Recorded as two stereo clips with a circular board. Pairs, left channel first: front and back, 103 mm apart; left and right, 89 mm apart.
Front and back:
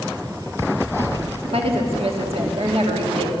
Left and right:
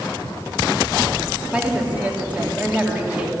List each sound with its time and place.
1.5 s a woman speaking: 165° right, 2.5 m